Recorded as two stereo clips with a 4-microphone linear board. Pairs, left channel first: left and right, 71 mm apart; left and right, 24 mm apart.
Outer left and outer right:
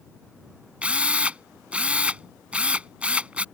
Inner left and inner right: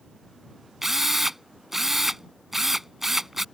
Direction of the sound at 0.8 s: 15° right (ahead or behind).